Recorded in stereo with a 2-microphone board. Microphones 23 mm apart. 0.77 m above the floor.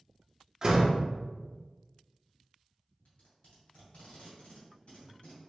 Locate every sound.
0.6 s a door slam: 25° right (ahead or behind), 0.8 m
3.0 s tape being pulled: 70° left (ahead or behind), 2.0 m